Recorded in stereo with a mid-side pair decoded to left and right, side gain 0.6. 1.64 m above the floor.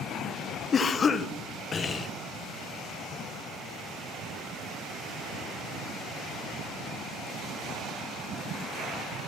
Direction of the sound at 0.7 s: 35° left.